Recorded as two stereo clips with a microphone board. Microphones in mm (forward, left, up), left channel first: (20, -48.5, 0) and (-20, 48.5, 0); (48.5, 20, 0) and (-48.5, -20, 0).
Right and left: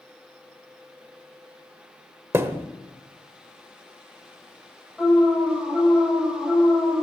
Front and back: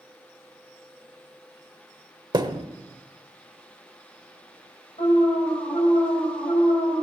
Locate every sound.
2.3 s a thud: 170° left, 0.9 m
5.0 s an alarm: 25° left, 4.5 m